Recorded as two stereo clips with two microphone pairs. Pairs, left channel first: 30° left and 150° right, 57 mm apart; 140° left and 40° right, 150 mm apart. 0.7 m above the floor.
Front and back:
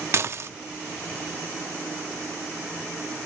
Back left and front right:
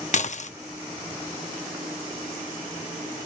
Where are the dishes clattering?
170° left, 0.5 m.